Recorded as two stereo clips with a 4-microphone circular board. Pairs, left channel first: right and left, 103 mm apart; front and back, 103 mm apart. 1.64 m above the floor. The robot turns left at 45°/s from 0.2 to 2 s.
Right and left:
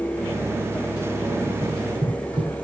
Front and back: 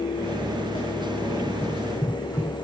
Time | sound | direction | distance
1.6 | running footsteps | 70° left | 5.5 m